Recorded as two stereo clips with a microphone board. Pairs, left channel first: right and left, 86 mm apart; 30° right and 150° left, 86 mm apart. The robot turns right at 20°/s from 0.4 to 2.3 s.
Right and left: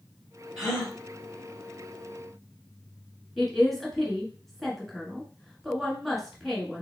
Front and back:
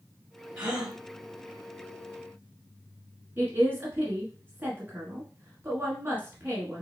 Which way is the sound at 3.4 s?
175° right.